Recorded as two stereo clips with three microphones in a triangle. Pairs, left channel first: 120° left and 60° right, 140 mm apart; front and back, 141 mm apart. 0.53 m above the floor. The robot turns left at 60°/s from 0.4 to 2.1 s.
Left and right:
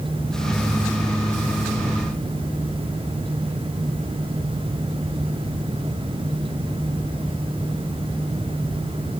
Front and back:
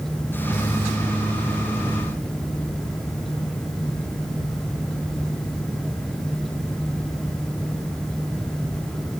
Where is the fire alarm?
No fire alarm in this recording.